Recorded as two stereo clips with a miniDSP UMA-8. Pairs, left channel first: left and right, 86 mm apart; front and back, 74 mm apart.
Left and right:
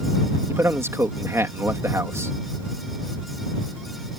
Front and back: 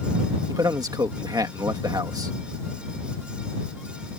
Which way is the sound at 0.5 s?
150° right.